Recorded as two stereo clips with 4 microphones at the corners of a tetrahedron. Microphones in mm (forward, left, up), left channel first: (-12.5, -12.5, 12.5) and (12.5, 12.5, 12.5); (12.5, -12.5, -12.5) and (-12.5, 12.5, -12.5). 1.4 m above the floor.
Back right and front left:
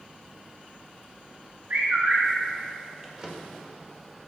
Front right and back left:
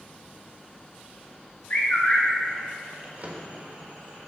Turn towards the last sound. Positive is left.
turn(degrees=105)